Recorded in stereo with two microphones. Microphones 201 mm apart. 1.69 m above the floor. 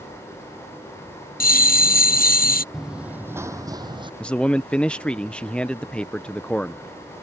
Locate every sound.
1.4 s a bell: 45° left (ahead or behind)
2.7 s running footsteps: centre (ahead or behind); by 4.1 s 25° right (ahead or behind)
4.2 s a man speaking: 5° left (ahead or behind)